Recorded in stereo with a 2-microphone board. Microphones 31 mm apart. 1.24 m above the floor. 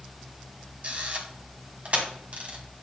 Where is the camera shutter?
45° right (ahead or behind), 1.8 m.